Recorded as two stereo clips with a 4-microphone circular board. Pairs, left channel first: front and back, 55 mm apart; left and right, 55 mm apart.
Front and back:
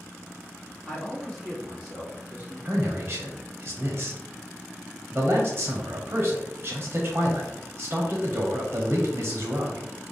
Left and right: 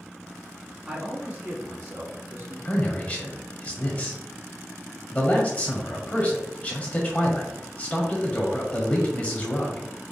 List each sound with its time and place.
0.9 s a man speaking: 60° right, 1.3 m; by 2.5 s 115° right, 2.5 m
2.6 s a man speaking: 145° left, 0.9 m